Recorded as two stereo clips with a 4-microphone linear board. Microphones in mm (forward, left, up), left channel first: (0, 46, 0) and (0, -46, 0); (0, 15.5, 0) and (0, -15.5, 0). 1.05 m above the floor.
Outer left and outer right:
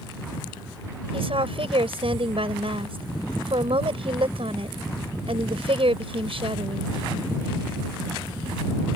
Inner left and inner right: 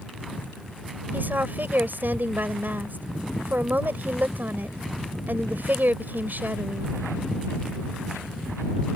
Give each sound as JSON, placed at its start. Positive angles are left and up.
{"t": 1.1, "sound": "a woman speaking", "side_deg": -85}